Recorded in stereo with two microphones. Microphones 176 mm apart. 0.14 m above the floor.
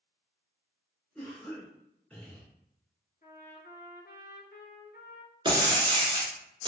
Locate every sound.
1.1 s a cough: 5° left (ahead or behind), 1.7 m
3.2 s a trumpet: 55° left (ahead or behind), 0.7 m
5.5 s breaking glass: 30° right (ahead or behind), 0.9 m